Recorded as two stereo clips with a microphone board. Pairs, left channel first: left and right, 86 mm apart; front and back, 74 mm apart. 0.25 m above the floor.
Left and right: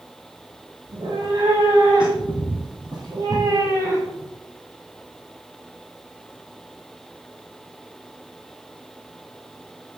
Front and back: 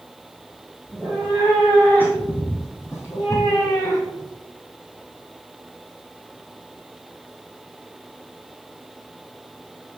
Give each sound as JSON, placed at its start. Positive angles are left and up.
{"t": 0.9, "sound": "a cat meowing", "azimuth_deg": -75, "distance_m": 3.0}